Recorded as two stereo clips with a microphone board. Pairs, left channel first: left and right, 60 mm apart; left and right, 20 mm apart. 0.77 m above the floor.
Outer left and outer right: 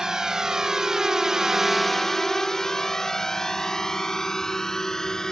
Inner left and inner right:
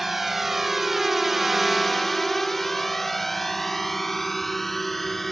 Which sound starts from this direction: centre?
A drone, at 0.0 s.